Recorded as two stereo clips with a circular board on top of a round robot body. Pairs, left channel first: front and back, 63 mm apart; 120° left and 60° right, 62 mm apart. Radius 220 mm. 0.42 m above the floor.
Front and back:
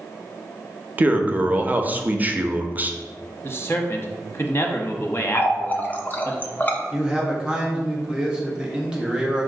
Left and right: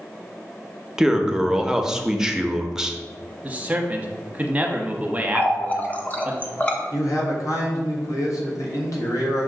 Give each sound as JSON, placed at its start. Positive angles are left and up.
{"t": 1.0, "sound": "a man speaking", "azimuth_deg": -135, "distance_m": 0.8}
{"t": 3.4, "sound": "a man speaking", "azimuth_deg": -10, "distance_m": 1.0}
{"t": 5.3, "sound": "a running tap", "azimuth_deg": 55, "distance_m": 0.9}
{"t": 6.9, "sound": "a man speaking", "azimuth_deg": 105, "distance_m": 1.5}